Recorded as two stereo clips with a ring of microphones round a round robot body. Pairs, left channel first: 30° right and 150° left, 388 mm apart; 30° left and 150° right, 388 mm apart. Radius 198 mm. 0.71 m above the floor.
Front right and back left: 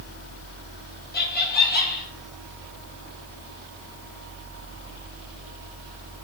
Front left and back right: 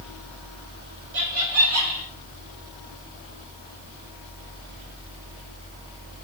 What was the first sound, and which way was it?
Laughter, 95° right.